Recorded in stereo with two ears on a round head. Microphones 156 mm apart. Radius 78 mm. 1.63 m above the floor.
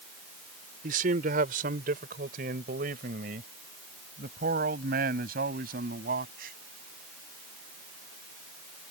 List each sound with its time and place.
0.8 s a man speaking: 50° right (ahead or behind); by 6.5 s 55° right (ahead or behind)